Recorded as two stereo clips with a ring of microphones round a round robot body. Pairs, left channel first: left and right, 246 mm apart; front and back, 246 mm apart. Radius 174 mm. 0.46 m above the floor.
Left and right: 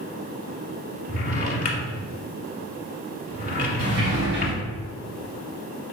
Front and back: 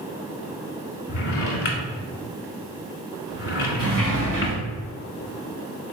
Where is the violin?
No violin in this recording.